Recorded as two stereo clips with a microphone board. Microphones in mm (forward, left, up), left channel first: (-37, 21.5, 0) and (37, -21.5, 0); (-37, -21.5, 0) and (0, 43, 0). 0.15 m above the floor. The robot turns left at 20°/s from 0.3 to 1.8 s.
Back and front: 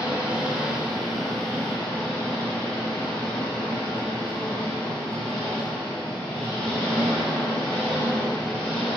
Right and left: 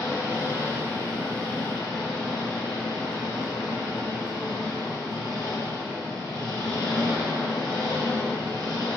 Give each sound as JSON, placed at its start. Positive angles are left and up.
{"t": 0.0, "sound": "an engine running", "azimuth_deg": -105, "distance_m": 2.5}